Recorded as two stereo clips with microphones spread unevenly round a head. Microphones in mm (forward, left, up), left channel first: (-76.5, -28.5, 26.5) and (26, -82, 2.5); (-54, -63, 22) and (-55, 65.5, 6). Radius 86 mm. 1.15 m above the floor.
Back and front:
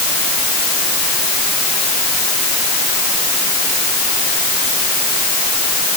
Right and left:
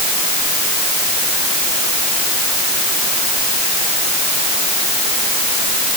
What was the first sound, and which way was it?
Only background noise.